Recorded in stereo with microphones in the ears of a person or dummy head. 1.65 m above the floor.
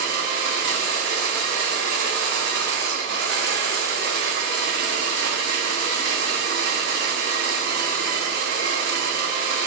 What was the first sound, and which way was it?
A machine running, 65° right (ahead or behind).